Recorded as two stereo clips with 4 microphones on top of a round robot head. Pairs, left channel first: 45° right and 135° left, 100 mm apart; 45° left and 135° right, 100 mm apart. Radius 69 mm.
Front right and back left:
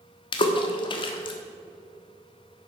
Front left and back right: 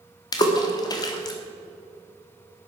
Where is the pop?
No pop in this recording.